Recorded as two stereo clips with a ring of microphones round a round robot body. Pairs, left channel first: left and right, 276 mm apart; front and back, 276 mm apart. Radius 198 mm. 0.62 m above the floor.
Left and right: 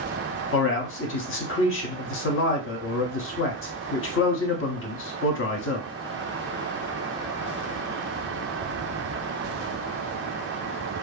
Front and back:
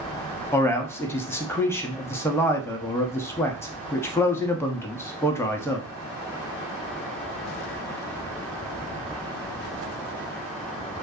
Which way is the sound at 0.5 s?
80° left.